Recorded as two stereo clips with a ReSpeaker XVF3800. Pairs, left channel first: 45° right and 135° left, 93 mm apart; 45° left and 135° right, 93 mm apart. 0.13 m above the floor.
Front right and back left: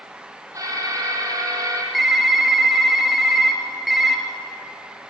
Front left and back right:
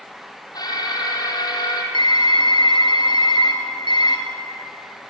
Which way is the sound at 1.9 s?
50° left.